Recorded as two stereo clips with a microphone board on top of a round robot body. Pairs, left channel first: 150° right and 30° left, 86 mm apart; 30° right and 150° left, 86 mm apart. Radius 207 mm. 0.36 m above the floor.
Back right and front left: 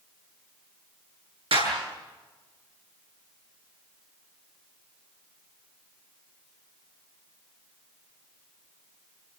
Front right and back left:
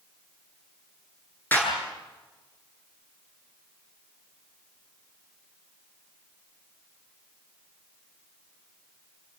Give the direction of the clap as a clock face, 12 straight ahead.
11 o'clock.